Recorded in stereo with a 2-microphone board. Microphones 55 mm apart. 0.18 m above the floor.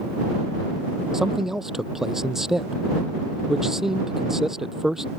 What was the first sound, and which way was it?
A man speaking, 10° right (ahead or behind).